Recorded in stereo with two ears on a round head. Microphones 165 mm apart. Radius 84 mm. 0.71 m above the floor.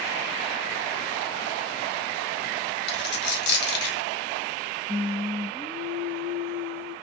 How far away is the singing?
About 2.5 m.